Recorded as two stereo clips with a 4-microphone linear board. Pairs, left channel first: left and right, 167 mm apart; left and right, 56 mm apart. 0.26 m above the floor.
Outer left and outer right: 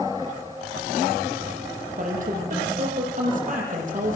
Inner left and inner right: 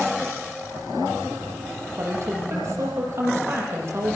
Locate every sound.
2.0 s a woman speaking: 50° right (ahead or behind), 8.5 m